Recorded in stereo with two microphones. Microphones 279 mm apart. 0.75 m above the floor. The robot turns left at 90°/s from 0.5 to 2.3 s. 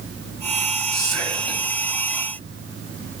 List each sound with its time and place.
0.9 s whispering: 75° left, 3 m; by 1.6 s 10° left, 3 m